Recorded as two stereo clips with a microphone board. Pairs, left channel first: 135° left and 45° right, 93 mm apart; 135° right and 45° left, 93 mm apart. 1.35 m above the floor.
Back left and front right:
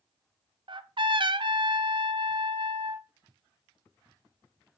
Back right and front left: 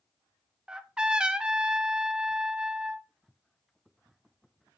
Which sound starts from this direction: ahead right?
A trumpet, at 0.7 s.